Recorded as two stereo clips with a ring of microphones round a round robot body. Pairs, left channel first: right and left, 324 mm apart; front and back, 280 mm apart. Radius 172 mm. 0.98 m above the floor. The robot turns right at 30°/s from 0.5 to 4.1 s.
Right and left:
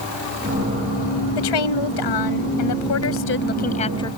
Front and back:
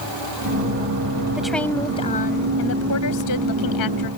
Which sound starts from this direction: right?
A woman speaking, at 1.4 s.